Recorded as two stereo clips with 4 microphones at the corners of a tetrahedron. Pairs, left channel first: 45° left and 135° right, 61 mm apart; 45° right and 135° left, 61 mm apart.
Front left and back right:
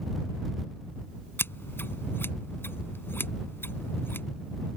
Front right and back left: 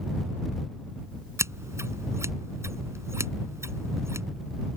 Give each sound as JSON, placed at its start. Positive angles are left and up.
{"t": 1.4, "sound": "scissors", "azimuth_deg": 95}